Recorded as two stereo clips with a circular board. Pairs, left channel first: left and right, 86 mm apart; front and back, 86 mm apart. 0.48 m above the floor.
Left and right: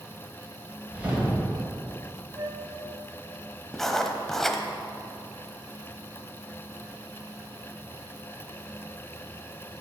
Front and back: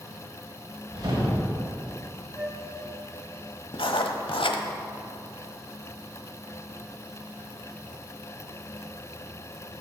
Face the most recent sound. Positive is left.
turn(degrees=5)